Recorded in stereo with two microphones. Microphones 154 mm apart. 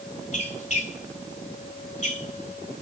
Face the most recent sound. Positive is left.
turn(degrees=45)  # may be behind; listen again after turning